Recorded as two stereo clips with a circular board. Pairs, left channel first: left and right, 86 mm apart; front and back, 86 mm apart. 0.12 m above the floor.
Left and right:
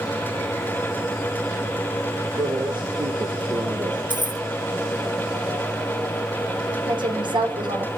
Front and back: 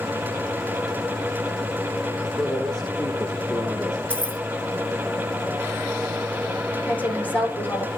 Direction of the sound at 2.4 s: 85° right.